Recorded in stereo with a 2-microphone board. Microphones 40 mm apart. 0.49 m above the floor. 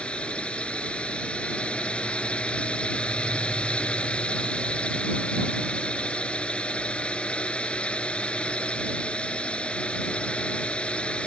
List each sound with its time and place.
0.0 s a drone: 25° left (ahead or behind)